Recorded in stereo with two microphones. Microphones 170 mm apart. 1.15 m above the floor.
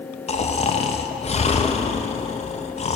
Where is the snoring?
40° left (ahead or behind), 0.5 m.